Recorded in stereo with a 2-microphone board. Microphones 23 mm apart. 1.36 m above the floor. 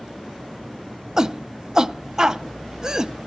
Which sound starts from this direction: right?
A shout, at 1.2 s.